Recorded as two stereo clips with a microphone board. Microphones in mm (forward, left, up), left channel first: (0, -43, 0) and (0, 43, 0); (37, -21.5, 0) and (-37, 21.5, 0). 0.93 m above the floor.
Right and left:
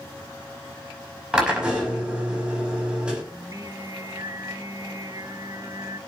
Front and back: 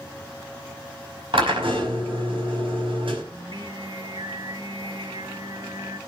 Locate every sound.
1.3 s a drill: 165° left, 5.5 m
3.3 s singing: 130° left, 1.2 m